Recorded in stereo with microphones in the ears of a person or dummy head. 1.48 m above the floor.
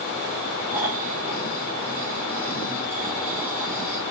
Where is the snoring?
5° right (ahead or behind), 3.5 m.